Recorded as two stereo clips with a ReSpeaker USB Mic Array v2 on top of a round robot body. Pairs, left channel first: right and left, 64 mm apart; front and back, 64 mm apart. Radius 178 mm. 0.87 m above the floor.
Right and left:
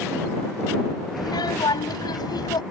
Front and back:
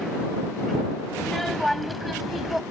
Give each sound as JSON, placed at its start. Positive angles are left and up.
{"t": 1.2, "sound": "a child speaking", "azimuth_deg": -85}